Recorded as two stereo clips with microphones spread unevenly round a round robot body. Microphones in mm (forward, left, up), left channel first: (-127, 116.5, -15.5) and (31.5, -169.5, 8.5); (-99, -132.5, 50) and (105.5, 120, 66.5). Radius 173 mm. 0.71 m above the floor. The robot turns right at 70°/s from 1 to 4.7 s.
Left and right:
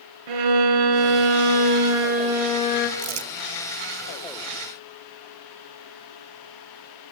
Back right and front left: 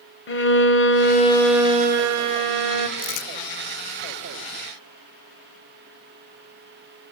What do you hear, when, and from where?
0.3 s a violin: 75° right, 2.0 m; by 2.9 s 60° left, 2.0 m
3.0 s crumpling: 110° right, 2.5 m; by 3.3 s 90° right, 2.5 m